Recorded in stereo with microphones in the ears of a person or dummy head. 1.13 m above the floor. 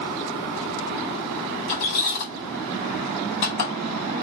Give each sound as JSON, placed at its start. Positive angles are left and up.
{"t": 1.7, "sound": "a squeak", "side_deg": 55, "distance_m": 1.6}